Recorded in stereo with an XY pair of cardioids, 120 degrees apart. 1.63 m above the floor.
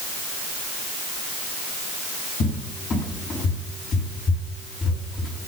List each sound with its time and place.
2.4 s a cupboard door: 45° left, 5.5 m